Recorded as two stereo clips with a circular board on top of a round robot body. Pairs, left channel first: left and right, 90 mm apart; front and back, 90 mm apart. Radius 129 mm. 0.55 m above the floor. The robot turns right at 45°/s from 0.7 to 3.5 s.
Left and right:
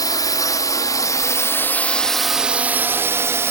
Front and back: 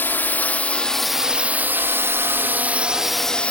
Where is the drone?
60° left; by 3.5 s 60° right.